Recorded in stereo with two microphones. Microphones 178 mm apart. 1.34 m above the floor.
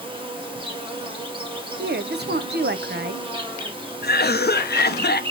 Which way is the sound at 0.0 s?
30° right (ahead or behind).